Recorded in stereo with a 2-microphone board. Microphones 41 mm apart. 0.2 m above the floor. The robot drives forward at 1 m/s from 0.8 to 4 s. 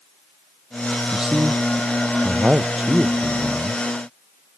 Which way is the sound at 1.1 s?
20° right (ahead or behind).